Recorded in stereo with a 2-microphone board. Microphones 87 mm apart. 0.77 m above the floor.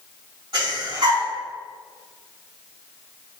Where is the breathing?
65° right (ahead or behind), 2.0 m.